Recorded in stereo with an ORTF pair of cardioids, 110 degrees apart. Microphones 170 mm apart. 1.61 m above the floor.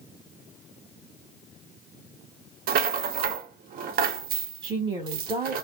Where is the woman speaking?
30° right, 1.6 m.